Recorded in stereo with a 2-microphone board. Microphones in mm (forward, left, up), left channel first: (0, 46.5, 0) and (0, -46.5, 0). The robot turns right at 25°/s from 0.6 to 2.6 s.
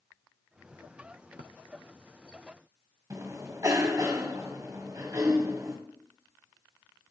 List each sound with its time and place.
3.1 s a cough: 40° right (ahead or behind), 1.8 m